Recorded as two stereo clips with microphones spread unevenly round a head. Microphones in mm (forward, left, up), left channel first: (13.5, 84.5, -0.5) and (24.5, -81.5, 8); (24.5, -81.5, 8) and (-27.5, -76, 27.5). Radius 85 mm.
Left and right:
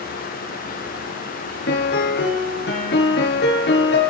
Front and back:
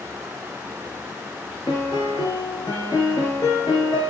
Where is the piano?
70° left, 3 m.